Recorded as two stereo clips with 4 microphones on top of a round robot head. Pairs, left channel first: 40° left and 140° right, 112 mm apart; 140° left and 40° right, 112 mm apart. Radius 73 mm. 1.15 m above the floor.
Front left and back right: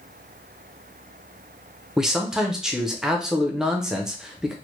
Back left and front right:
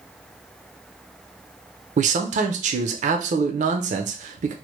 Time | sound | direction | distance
2.0 | a man speaking | 60° right | 0.5 m